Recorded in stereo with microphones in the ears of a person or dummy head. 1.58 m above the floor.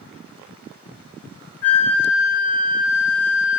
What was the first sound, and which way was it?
A flute, 15° left (ahead or behind).